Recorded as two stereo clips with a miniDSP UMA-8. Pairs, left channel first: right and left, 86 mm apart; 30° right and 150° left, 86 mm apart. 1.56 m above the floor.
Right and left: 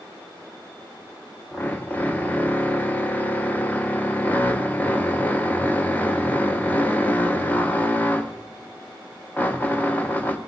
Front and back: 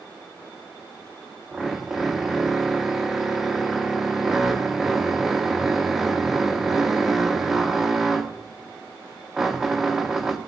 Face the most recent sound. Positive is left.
turn(degrees=-130)